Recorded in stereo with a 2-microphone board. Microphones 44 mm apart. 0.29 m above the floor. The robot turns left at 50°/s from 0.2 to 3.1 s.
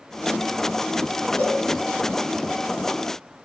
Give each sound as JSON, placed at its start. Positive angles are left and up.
{"t": 1.4, "sound": "a cowbell", "side_deg": 50, "distance_m": 1.8}